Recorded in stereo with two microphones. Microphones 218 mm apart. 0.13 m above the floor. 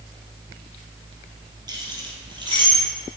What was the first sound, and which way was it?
Keys jangling, 20° right (ahead or behind).